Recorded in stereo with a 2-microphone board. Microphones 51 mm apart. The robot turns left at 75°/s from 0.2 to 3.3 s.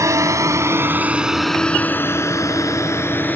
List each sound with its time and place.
0.0 s a drone: 80° right; by 3.4 s 35° left (ahead or behind)